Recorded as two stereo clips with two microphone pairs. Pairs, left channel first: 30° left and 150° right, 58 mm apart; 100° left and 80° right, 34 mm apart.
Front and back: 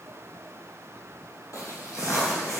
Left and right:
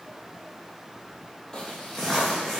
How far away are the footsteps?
About 0.9 m.